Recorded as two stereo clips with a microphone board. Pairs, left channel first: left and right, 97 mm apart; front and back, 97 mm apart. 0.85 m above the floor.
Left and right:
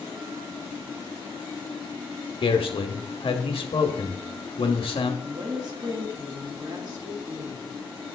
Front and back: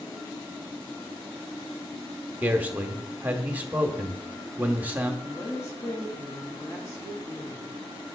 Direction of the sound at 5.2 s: 55° right.